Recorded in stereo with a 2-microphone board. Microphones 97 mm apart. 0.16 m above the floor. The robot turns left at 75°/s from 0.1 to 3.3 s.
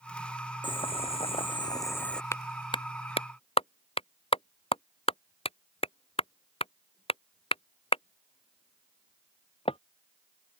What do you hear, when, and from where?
0.6 s boiling: 125° left; by 2.2 s 5° left
2.3 s a clap: 25° left (ahead or behind); by 9.8 s 80° left